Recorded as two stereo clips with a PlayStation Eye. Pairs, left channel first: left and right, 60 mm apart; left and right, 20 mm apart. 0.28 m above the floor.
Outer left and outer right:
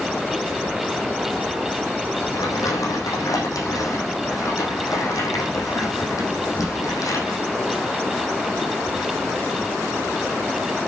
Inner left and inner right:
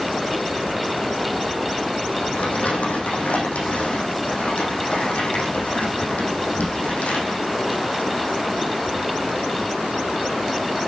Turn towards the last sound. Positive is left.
turn(degrees=75)  # may be behind; listen again after turning